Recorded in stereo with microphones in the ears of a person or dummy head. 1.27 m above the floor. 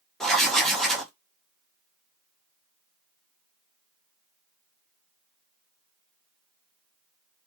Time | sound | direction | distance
0.2 | writing | centre (ahead or behind) | 0.6 m